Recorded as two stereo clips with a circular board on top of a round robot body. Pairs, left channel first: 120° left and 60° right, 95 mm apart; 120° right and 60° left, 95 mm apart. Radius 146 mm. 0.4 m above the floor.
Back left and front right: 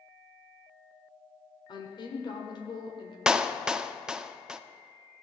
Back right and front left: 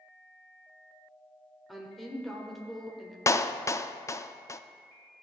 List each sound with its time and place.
1.7 s a woman speaking: 150° left, 1.7 m
3.3 s a clap: 135° right, 0.6 m